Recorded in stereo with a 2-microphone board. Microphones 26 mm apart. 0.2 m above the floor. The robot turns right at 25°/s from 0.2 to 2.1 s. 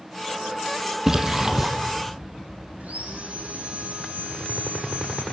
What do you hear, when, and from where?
1.1 s a splash: 20° right (ahead or behind), 2.5 m; by 1.7 s 35° right (ahead or behind), 2.5 m
2.8 s sawing: 70° right (ahead or behind), 6 m